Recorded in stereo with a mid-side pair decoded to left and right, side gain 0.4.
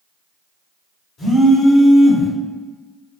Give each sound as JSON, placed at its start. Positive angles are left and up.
{"t": 1.2, "sound": "a phone buzzing", "azimuth_deg": 60, "distance_m": 1.6}